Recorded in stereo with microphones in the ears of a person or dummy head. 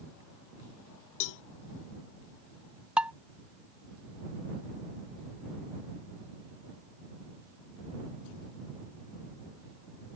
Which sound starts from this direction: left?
A cowbell, at 1.2 s.